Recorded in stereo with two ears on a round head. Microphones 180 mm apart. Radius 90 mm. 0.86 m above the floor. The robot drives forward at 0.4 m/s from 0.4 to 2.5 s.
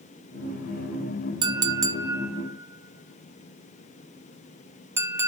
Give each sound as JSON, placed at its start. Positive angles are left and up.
{"t": 1.4, "sound": "a clink", "side_deg": -20, "distance_m": 0.5}